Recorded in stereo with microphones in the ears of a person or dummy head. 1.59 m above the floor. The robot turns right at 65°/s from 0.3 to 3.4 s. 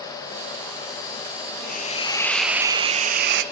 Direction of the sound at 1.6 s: 130° left.